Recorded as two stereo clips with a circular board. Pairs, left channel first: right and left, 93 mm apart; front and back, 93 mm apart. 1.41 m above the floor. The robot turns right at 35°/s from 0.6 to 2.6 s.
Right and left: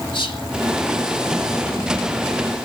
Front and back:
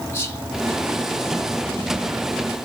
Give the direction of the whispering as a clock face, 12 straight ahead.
2 o'clock.